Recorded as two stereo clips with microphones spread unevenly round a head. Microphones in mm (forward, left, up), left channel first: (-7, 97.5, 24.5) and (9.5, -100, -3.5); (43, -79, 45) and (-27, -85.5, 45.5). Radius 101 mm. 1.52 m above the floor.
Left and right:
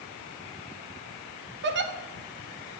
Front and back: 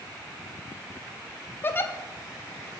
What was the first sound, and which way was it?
A giggle, 50° right.